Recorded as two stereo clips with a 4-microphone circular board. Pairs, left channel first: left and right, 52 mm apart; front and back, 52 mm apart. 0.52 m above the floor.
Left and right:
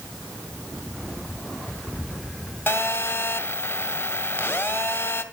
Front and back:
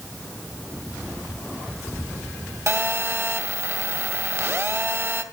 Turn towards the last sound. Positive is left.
turn(degrees=140)